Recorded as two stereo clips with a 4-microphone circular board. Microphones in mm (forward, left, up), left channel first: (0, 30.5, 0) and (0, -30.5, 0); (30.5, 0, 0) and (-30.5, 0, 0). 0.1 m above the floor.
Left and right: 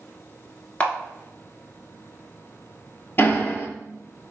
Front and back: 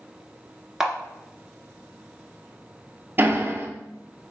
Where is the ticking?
135° left, 0.6 m.